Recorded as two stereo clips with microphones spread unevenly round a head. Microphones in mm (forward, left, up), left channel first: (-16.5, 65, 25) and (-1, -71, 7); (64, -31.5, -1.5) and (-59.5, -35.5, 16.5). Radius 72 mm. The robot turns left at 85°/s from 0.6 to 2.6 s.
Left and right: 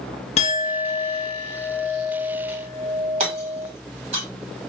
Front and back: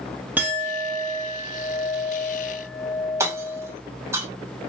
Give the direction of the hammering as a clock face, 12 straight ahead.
4 o'clock.